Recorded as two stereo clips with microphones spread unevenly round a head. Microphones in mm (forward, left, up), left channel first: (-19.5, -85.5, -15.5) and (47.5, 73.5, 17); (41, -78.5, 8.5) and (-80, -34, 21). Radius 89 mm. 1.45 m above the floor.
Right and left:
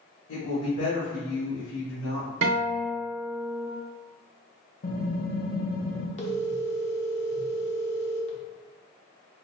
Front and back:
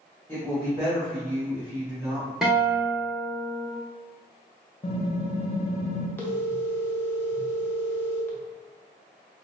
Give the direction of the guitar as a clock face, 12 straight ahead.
10 o'clock.